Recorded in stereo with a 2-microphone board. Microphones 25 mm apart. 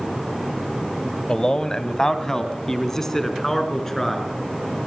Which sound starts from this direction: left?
A man speaking, at 1.3 s.